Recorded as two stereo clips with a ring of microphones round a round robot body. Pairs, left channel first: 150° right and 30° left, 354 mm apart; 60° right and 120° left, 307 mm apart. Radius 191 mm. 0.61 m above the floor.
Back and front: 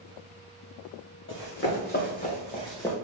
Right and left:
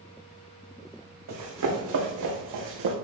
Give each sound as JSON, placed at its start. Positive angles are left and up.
{"t": 1.3, "sound": "running footsteps", "azimuth_deg": 155, "distance_m": 2.5}